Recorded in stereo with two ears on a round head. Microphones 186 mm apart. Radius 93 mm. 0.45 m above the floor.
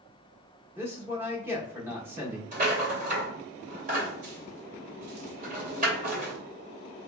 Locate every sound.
0.8 s a man speaking: 10° right (ahead or behind), 0.8 m
2.5 s a rattle: 40° right (ahead or behind), 2.0 m